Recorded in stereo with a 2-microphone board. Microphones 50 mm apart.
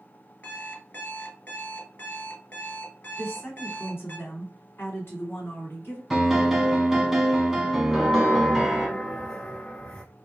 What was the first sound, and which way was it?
An alarm clock, 35° left (ahead or behind).